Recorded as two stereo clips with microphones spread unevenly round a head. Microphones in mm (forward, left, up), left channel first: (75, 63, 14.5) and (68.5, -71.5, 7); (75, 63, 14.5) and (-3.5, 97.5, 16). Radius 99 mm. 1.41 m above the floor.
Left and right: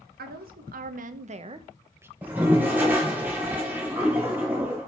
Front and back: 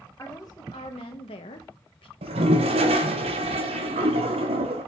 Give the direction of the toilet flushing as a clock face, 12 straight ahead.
6 o'clock.